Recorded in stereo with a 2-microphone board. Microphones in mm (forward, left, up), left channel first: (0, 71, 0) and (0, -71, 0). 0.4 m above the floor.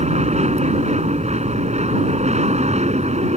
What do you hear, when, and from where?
0.0 s an aircraft: 50° right (ahead or behind)